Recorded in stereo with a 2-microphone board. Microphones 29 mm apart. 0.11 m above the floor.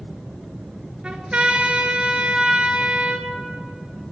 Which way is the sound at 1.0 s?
35° right (ahead or behind).